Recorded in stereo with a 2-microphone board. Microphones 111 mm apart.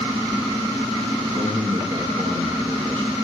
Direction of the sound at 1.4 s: 30° right (ahead or behind).